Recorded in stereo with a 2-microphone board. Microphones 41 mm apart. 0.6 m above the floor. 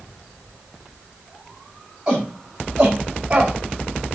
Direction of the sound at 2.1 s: 20° right (ahead or behind).